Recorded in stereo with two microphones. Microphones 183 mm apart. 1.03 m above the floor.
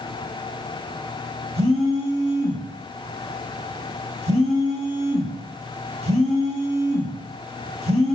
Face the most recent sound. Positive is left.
turn(degrees=-35)  # may be behind; listen again after turning